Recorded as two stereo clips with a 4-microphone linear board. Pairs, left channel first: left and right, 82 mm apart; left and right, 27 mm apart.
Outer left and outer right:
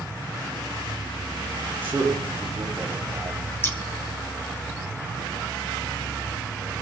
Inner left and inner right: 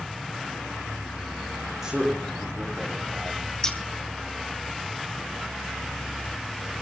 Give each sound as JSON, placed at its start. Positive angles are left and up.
{"t": 1.8, "sound": "a man speaking", "side_deg": -20, "distance_m": 6.5}
{"t": 3.6, "sound": "scissors", "side_deg": 30, "distance_m": 1.5}